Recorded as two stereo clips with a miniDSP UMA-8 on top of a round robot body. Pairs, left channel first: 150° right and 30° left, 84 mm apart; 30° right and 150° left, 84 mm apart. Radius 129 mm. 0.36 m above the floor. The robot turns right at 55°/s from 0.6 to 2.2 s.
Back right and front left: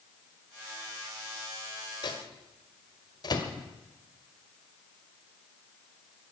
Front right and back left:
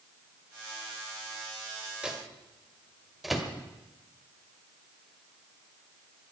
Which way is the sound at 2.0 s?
130° right.